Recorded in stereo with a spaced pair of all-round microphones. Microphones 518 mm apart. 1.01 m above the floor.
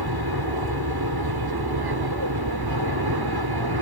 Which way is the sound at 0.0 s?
45° right (ahead or behind).